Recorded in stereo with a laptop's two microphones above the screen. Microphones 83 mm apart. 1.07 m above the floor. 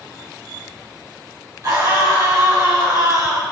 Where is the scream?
50° right (ahead or behind), 5.5 m; by 3.4 s 55° right (ahead or behind), 4.5 m.